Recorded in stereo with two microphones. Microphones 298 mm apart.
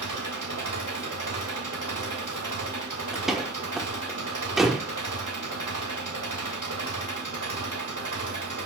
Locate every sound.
0.0 s an engine running: 85° right, 2 m
3.1 s a door slam: centre (ahead or behind), 1.1 m